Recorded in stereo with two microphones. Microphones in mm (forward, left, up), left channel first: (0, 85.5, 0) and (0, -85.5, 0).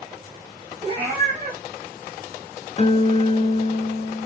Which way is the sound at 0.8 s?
35° right (ahead or behind).